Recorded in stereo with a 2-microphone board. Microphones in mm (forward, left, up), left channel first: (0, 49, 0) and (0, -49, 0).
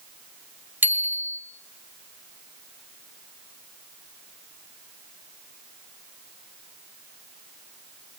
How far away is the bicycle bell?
About 2.5 m.